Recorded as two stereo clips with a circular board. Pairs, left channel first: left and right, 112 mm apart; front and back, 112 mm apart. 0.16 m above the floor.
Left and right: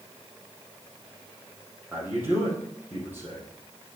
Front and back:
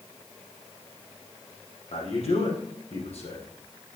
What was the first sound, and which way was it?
A man speaking, 15° right.